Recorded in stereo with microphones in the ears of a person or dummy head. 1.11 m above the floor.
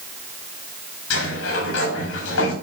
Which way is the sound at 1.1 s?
85° left.